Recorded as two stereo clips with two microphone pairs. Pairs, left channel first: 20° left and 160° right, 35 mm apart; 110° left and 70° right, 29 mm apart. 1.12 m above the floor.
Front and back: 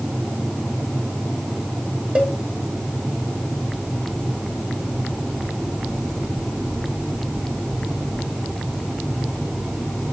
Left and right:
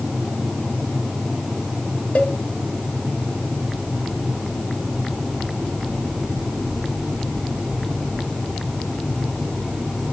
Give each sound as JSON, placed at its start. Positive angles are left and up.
{"t": 2.1, "sound": "a cowbell", "azimuth_deg": 145, "distance_m": 1.7}